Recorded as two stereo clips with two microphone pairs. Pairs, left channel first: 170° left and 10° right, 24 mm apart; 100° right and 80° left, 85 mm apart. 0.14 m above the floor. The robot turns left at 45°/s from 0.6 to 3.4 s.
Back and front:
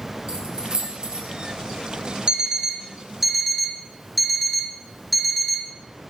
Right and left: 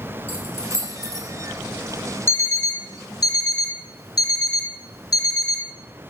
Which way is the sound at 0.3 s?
40° right.